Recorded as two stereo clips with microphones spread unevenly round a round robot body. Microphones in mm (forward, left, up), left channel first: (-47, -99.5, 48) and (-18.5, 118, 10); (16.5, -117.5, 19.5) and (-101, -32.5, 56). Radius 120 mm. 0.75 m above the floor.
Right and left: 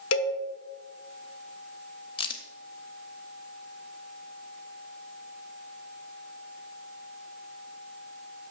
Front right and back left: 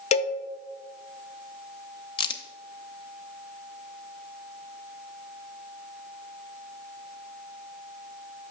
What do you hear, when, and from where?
0.1 s a cowbell: 85° right, 0.6 m
2.2 s a crack: 90° right, 0.5 m